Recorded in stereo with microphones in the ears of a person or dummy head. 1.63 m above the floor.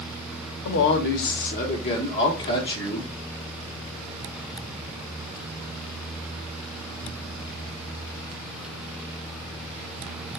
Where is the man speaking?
65° left (ahead or behind), 0.8 m; by 3.1 s 20° left (ahead or behind), 1.6 m.